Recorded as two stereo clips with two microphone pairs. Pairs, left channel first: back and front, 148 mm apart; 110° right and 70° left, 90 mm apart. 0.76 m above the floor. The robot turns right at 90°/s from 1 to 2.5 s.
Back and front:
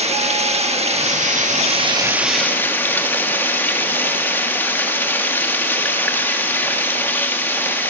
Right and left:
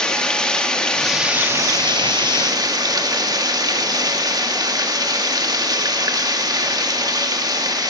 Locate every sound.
0.0 s running water: 30° right, 1.2 m; by 7.9 s 105° left, 1.2 m